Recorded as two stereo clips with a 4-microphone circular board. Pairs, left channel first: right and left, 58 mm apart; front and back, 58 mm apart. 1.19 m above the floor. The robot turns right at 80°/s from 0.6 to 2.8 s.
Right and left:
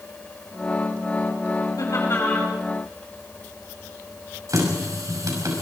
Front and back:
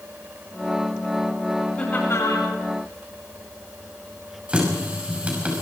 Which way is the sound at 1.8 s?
75° right.